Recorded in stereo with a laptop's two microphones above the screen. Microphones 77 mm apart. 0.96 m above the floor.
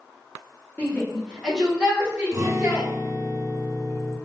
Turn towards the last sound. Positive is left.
turn(degrees=-40)  # may be behind; listen again after turning